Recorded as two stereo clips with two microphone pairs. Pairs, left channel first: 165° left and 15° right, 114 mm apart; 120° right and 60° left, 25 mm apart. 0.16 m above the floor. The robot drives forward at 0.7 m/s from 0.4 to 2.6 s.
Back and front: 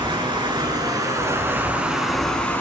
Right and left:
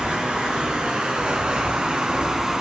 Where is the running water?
25° left, 1.9 m; by 2.6 s 105° left, 1.3 m.